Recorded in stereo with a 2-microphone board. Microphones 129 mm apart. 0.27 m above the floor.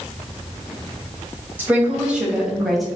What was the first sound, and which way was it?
A woman speaking, 15° right (ahead or behind).